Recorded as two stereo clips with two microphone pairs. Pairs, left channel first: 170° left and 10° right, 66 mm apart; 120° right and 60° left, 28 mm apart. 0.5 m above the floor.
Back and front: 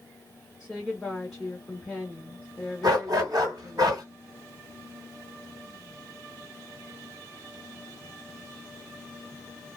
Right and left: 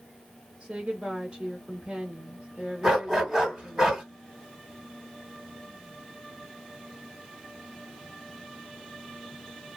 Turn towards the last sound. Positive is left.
turn(degrees=-15)